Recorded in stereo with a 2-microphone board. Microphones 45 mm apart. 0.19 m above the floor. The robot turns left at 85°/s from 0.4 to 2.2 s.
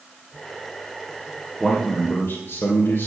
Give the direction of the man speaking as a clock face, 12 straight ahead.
6 o'clock.